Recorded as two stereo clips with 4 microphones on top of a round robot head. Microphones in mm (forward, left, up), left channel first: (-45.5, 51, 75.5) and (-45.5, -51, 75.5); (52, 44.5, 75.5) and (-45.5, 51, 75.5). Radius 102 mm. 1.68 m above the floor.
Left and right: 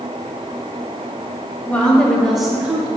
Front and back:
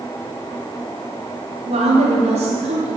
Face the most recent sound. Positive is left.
turn(degrees=-155)